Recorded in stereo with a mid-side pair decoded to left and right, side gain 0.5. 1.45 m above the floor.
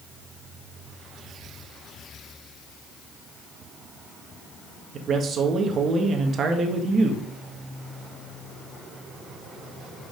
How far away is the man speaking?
About 1.6 m.